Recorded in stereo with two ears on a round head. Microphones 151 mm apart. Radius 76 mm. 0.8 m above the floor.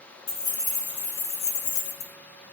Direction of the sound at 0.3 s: 40° left (ahead or behind).